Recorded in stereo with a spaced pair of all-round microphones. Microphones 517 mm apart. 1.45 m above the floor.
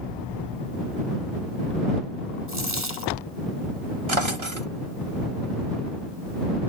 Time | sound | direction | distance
2.5 | a dropped coin | 70° right (ahead or behind) | ?
4.1 | a drawer | 65° right (ahead or behind) | ?